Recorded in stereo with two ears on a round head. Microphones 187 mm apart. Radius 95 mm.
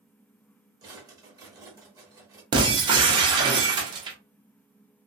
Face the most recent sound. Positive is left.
turn(degrees=-20)  # may be behind; listen again after turning